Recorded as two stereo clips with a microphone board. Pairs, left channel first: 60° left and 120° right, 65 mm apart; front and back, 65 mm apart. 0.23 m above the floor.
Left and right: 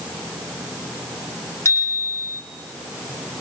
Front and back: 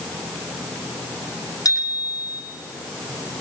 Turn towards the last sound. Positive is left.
turn(degrees=15)